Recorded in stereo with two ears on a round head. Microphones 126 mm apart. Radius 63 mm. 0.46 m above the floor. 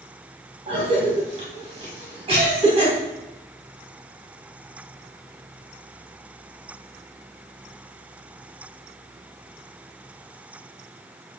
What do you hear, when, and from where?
0.7 s a cough: 45° right (ahead or behind), 3 m